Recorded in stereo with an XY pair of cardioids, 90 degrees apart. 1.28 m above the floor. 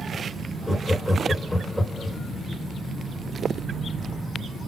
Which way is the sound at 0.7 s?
5° left.